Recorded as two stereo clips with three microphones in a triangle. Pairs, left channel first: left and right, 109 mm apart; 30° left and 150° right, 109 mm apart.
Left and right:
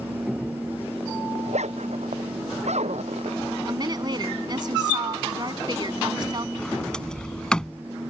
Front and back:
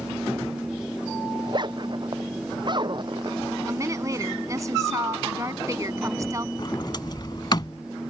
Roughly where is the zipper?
Right.